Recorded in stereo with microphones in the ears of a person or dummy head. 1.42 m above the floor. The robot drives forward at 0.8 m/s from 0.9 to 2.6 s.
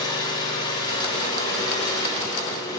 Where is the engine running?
25° left (ahead or behind), 6.5 m; by 2.8 s 20° left (ahead or behind), 8 m.